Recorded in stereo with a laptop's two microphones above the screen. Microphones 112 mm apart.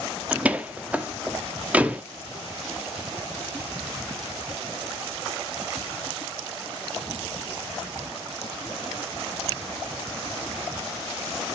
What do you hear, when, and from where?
0.3 s a door slam: 10° right (ahead or behind), 1.3 m